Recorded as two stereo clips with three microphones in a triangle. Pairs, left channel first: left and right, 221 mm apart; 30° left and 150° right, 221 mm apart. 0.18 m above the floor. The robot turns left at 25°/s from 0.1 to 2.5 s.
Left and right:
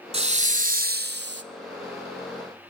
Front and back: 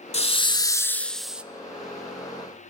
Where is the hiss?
35° right, 0.5 m; by 1.4 s 65° right, 0.5 m.